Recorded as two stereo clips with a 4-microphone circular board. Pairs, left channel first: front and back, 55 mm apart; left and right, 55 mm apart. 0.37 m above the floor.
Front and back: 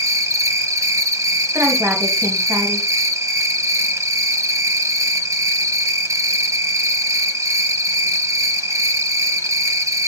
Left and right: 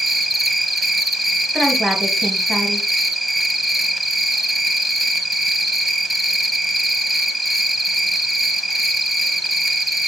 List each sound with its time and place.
0.0 s an insect: 175° right, 0.9 m
1.5 s a woman speaking: straight behind, 2.0 m